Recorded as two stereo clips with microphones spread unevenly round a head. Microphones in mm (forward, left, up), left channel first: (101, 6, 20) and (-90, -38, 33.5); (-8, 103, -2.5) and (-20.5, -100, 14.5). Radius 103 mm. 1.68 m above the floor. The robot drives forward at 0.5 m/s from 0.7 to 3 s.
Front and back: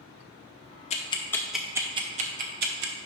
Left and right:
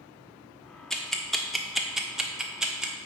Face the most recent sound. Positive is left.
turn(degrees=-175)